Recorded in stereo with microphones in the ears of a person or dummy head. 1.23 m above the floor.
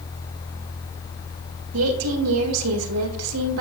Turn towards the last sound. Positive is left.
turn(degrees=-80)